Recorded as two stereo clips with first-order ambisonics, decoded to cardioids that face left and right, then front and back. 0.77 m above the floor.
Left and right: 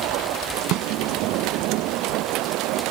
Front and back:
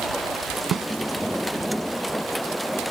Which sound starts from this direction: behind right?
A snare drum, at 0.7 s.